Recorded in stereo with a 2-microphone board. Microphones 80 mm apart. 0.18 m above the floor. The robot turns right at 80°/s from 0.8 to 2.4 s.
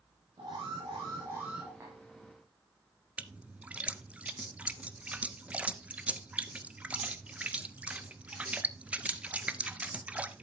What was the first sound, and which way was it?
An alarm, 75° right.